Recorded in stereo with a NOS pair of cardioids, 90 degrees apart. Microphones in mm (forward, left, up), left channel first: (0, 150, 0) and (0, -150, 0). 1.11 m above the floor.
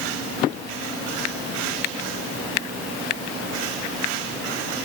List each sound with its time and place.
Only background noise.